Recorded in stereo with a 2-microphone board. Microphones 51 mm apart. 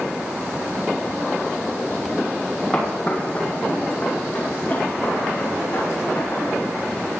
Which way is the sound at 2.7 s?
20° left (ahead or behind).